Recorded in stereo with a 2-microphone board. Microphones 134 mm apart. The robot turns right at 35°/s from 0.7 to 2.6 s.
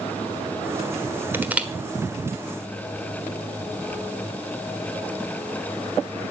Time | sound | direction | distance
1.3 | crushing | 15° right (ahead or behind) | 1.3 m